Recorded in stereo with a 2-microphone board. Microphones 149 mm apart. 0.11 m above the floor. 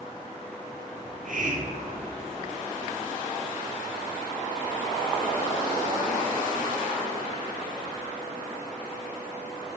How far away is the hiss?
About 1.5 m.